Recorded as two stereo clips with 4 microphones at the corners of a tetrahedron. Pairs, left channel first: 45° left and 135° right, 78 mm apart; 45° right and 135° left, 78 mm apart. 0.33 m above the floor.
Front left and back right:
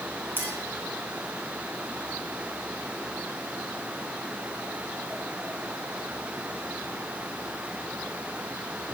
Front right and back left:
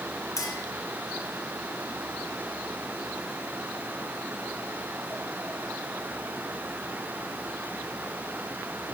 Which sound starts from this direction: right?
A clink, at 0.4 s.